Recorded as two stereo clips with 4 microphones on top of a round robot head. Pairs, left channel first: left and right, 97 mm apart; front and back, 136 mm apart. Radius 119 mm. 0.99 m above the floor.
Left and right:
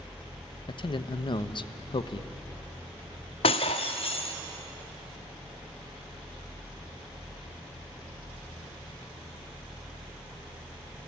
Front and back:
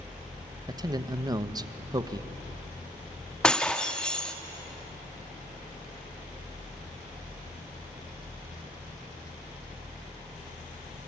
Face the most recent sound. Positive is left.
turn(degrees=80)